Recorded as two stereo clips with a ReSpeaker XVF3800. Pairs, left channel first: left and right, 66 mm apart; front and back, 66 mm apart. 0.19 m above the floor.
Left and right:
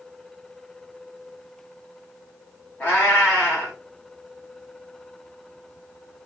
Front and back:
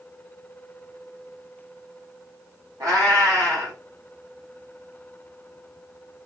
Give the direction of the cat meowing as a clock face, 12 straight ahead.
7 o'clock.